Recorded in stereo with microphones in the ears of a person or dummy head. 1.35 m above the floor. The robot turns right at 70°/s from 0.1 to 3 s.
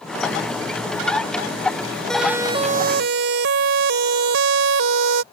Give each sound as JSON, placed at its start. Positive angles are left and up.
{"t": 2.1, "sound": "a siren", "side_deg": 0}